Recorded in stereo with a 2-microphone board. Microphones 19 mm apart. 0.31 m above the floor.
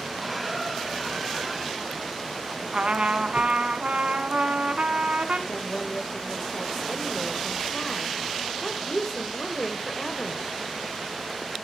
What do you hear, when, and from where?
0.2 s a squeak: 5° right (ahead or behind), 1.2 m
2.7 s a trumpet: 80° right, 0.9 m
5.5 s a woman speaking: 20° left (ahead or behind), 1.0 m